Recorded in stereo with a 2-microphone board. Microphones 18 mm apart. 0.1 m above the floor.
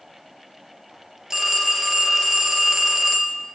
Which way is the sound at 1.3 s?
25° right (ahead or behind).